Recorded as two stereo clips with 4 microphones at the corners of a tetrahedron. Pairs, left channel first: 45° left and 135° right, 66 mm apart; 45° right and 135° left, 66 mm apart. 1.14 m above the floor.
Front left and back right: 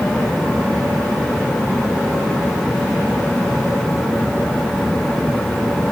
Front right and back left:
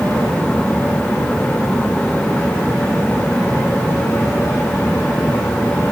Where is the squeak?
I don't hear a squeak.